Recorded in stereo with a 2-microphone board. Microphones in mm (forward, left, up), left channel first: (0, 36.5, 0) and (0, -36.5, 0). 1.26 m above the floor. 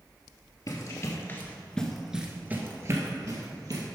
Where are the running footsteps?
50° left (ahead or behind), 1.8 m; by 3.8 s 55° right (ahead or behind), 2.5 m.